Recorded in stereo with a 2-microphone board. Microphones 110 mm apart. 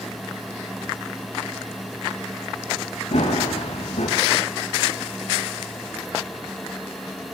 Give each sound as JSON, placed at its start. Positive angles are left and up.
{"t": 3.1, "sound": "running footsteps", "side_deg": 80, "distance_m": 6.5}